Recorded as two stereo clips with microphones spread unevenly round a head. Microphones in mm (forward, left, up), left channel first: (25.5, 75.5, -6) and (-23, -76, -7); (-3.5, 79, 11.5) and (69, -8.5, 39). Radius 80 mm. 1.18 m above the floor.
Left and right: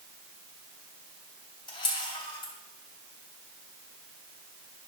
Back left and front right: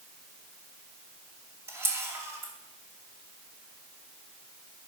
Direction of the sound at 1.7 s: 10° left.